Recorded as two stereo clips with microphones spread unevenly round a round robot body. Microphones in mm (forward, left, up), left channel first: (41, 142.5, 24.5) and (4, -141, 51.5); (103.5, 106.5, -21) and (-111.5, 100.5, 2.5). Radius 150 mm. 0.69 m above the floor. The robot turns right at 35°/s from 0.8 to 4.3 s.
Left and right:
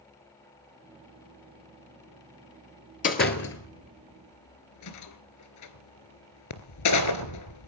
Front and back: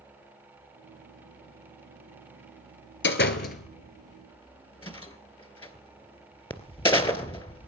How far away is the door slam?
About 2.5 m.